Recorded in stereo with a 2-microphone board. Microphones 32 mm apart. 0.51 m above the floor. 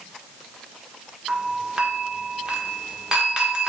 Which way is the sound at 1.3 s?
20° right (ahead or behind).